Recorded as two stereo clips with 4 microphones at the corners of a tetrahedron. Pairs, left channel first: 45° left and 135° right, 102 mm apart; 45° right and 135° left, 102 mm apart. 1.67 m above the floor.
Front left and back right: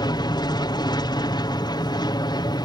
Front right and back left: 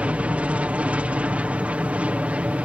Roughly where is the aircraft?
Ahead left.